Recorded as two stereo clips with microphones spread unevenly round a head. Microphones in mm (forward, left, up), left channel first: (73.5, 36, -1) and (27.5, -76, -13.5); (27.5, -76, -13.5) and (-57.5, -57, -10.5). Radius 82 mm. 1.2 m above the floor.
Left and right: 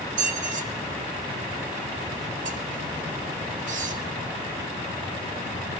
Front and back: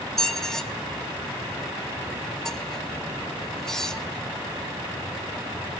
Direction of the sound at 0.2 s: 95° right.